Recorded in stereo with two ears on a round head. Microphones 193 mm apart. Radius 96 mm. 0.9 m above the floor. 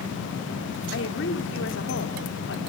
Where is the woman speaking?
60° left (ahead or behind), 3 m.